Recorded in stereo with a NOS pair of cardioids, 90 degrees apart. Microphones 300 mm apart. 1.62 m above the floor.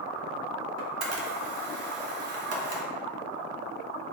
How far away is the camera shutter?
About 1.0 m.